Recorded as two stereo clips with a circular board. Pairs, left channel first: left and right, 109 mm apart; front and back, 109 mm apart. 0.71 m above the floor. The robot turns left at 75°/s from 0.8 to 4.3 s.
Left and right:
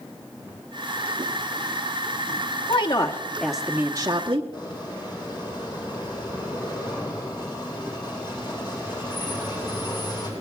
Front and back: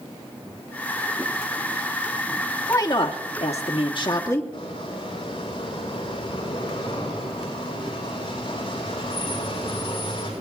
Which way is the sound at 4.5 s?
40° left.